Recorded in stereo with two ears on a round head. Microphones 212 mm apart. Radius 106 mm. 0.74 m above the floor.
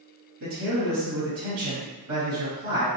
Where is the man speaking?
65° right (ahead or behind), 1.7 m.